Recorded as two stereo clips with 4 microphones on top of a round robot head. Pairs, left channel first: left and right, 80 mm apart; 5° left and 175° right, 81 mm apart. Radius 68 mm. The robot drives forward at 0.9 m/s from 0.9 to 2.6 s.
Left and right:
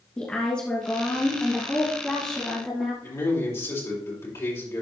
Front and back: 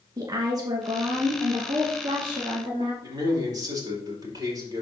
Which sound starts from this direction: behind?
A woman speaking, at 0.2 s.